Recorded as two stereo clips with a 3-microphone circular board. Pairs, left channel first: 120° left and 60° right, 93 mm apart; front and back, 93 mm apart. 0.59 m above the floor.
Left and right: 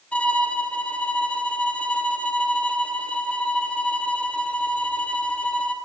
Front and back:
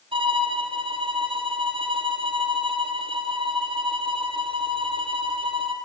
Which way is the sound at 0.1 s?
165° right.